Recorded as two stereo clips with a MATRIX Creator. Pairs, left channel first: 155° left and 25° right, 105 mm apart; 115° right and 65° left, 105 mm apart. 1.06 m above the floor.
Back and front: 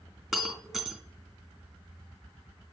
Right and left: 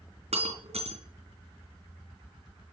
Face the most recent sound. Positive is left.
turn(degrees=65)